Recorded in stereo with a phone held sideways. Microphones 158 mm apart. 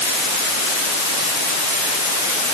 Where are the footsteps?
No footsteps in this recording.